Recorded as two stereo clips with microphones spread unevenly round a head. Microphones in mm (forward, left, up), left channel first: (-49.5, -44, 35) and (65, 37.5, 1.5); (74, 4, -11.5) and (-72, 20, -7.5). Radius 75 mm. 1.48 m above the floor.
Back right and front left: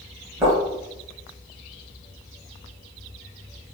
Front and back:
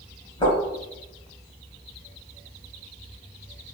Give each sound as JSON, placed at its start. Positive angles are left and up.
{"t": 0.4, "sound": "footsteps", "azimuth_deg": -45, "distance_m": 1.7}